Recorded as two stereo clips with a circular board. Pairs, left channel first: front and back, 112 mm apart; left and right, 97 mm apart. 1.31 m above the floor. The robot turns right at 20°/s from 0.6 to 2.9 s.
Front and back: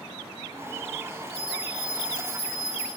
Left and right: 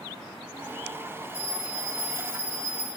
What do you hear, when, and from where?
1.3 s a bell: 110° right, 1.0 m; by 2.9 s 80° right, 1.0 m